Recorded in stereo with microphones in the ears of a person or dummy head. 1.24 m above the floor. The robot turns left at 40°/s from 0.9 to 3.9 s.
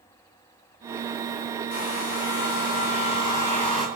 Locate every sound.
1.7 s a hair dryer: 85° left, 9.5 m; by 3.9 s straight ahead, 9.5 m